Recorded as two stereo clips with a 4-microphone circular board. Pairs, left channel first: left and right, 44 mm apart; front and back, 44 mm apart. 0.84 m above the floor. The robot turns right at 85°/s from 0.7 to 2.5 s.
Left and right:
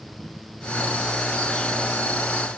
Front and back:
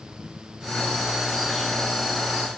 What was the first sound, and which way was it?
Only background noise.